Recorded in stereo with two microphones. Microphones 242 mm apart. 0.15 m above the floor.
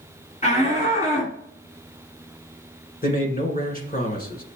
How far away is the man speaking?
About 1.4 m.